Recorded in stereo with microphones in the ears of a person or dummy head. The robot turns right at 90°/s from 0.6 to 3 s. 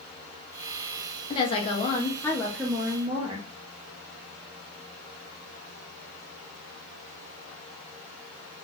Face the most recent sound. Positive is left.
turn(degrees=-20)  # may be behind; listen again after turning